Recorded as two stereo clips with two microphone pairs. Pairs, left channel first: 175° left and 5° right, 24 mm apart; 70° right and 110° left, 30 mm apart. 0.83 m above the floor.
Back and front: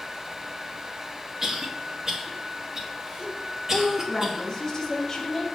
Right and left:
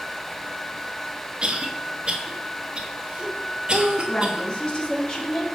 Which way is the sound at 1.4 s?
60° left.